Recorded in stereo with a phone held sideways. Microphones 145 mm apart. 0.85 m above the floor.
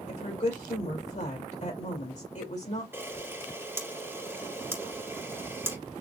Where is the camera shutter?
15° right (ahead or behind), 1.8 m.